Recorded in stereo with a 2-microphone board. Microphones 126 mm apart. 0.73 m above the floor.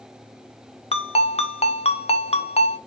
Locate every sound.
0.9 s a ringtone: 50° left (ahead or behind), 0.5 m